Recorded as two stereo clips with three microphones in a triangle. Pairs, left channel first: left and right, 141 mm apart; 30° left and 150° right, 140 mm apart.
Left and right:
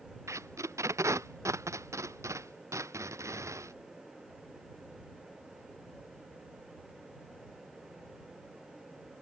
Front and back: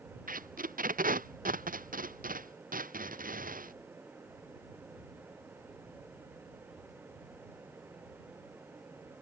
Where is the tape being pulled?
160° right.